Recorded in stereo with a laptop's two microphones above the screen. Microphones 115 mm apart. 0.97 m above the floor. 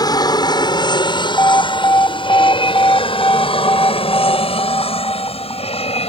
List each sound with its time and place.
0.0 s an aircraft: 35° left (ahead or behind); by 6.1 s 60° left (ahead or behind)
1.4 s an alarm: 25° left (ahead or behind)